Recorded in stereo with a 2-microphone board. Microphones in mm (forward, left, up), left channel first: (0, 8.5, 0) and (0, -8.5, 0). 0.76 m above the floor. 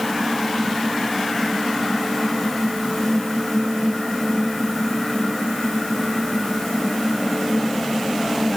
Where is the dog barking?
I don't hear a dog barking.